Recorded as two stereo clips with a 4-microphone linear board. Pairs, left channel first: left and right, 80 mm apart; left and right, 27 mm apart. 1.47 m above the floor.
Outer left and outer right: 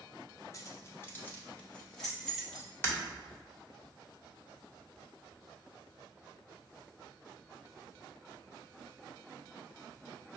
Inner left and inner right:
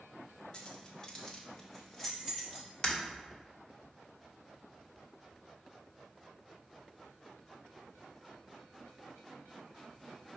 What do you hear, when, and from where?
0.5 s keys jangling: 40° left (ahead or behind), 0.7 m; by 2.7 s centre (ahead or behind), 1.5 m
2.8 s breaking glass: 30° left (ahead or behind), 1.3 m